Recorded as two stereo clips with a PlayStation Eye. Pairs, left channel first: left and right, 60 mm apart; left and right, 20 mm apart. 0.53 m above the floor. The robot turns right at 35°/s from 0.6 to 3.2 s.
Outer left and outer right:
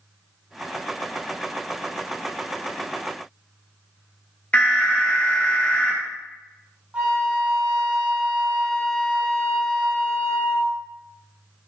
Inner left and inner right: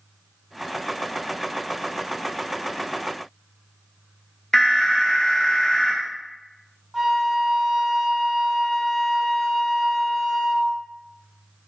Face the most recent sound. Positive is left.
turn(degrees=-25)  # may be behind; listen again after turning